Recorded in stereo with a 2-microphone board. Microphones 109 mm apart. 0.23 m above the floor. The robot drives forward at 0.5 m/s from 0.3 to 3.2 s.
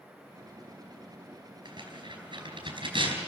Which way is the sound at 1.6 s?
45° right (ahead or behind).